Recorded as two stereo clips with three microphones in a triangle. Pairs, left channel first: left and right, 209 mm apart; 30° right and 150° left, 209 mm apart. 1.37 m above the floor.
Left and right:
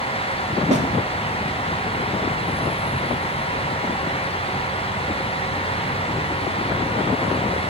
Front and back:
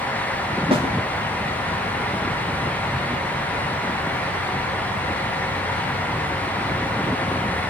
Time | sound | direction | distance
0.7 | a snare drum | 145° right | 3.5 m